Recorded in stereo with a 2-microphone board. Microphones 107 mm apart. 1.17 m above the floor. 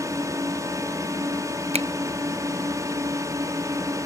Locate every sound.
0.0 s a drone: 30° right (ahead or behind)
1.7 s a finger snap: 80° right